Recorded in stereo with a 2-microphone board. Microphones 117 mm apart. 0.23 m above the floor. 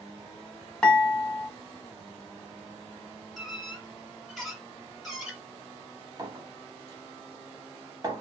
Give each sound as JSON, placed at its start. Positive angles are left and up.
{"t": 0.8, "sound": "dishes clattering", "side_deg": 5, "distance_m": 1.2}
{"t": 3.4, "sound": "a squeak", "side_deg": 0, "distance_m": 0.9}
{"t": 6.2, "sound": "a clink", "side_deg": -35, "distance_m": 0.7}